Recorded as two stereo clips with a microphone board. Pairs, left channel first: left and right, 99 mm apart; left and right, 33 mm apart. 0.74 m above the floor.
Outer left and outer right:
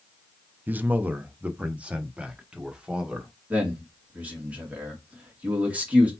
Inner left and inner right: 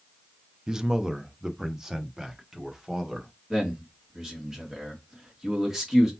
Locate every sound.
0.7 s a man speaking: 20° right (ahead or behind), 0.5 m; by 3.3 s 10° right (ahead or behind), 1.7 m
3.5 s a man speaking: 15° right (ahead or behind), 1.9 m